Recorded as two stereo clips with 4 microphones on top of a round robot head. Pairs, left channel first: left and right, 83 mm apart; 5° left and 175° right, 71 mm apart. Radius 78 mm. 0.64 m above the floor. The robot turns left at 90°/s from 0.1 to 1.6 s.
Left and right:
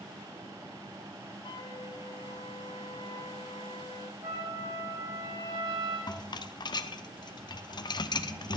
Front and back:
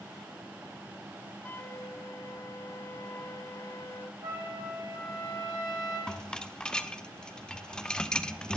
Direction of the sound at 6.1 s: 80° left.